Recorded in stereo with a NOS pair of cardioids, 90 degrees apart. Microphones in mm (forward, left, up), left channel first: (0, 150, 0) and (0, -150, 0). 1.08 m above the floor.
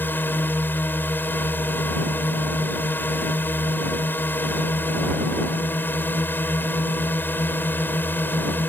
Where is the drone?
5° left.